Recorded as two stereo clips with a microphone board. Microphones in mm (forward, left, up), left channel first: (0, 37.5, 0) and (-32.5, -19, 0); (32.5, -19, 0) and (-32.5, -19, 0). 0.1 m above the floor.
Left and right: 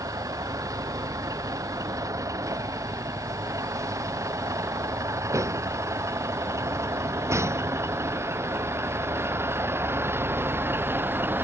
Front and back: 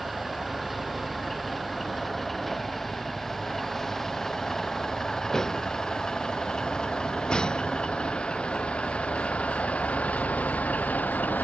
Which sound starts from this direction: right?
A vehicle, at 0.0 s.